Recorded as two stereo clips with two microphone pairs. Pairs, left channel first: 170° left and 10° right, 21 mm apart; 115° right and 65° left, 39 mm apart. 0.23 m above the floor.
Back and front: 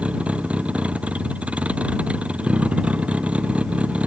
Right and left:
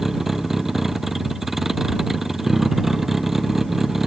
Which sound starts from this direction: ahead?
A vehicle, at 0.0 s.